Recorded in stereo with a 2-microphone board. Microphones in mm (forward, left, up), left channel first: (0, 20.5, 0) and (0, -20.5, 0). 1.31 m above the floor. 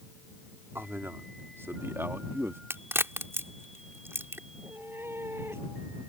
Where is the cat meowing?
70° right (ahead or behind).